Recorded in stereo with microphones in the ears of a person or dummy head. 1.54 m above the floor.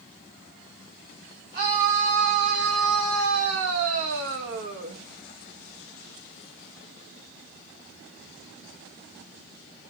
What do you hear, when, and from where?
1.5 s a scream: 40° right (ahead or behind), 1.7 m; by 5.0 s 65° right (ahead or behind), 2.5 m